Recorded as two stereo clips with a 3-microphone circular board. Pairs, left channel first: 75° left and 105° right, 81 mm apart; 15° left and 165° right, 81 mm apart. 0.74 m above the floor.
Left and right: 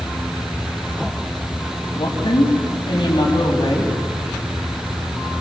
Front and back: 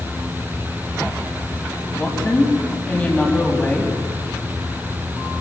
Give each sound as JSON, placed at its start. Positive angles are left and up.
{"t": 1.9, "sound": "a woman speaking", "azimuth_deg": 90, "distance_m": 5.0}